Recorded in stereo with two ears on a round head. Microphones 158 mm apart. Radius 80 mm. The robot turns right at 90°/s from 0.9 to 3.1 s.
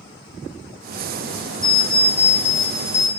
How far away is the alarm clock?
About 1.3 m.